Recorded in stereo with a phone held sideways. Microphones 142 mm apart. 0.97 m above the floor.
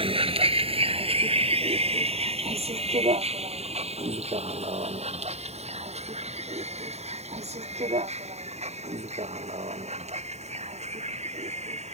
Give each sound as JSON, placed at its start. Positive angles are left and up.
{"t": 0.0, "sound": "a vehicle", "side_deg": -40}